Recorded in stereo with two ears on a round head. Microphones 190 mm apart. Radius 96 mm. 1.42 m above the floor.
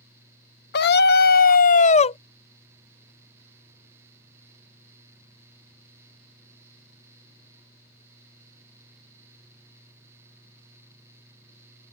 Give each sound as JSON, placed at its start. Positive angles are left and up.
{"t": 0.7, "sound": "a scream", "side_deg": 55}